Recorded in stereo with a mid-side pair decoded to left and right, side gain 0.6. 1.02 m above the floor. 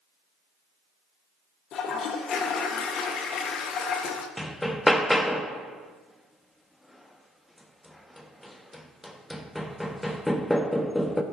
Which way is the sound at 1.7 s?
55° left.